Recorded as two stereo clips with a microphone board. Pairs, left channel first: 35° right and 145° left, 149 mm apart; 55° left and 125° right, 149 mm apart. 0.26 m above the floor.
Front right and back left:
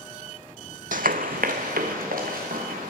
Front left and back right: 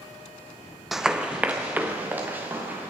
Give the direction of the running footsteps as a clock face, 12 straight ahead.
7 o'clock.